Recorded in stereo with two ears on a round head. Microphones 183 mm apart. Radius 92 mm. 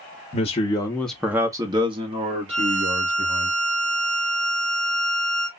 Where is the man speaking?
35° left (ahead or behind), 0.6 m; by 3.5 s 35° right (ahead or behind), 1.8 m.